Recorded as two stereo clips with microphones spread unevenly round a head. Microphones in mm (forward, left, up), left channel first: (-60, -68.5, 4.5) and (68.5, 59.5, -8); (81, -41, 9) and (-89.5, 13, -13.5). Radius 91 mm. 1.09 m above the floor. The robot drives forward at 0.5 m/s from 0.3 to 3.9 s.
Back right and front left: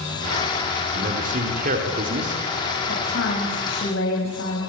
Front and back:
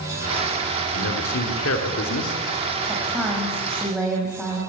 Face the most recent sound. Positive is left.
turn(degrees=-110)